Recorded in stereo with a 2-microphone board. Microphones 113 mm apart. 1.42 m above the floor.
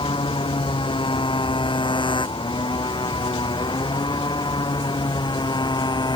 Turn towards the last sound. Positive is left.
turn(degrees=40)  # may be behind; listen again after turning